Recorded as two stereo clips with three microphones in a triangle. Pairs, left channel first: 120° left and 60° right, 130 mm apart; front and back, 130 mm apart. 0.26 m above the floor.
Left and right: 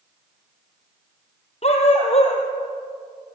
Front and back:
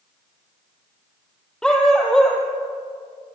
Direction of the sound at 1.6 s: 85° left.